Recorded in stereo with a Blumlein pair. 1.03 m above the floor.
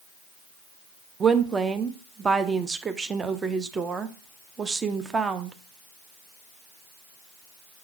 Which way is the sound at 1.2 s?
15° right.